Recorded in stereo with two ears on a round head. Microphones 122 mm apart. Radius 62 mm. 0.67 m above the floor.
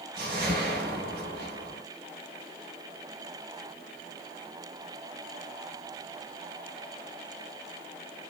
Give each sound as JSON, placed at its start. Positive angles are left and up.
{"t": 0.2, "sound": "a whoosh", "side_deg": -80, "distance_m": 3.0}